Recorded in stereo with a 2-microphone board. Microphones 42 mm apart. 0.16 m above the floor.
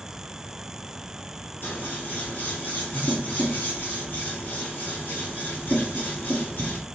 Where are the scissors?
50° left (ahead or behind), 1.5 m.